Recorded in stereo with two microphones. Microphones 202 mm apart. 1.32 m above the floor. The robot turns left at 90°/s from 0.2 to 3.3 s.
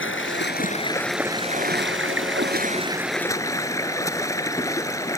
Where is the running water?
85° left; by 5.2 s 165° left.